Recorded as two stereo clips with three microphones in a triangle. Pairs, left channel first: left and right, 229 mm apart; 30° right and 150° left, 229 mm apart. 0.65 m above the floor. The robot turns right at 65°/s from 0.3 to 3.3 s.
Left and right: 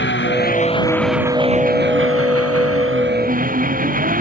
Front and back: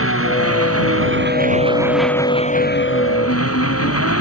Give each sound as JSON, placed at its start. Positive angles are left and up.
{"t": 0.0, "sound": "an engine running", "azimuth_deg": 130}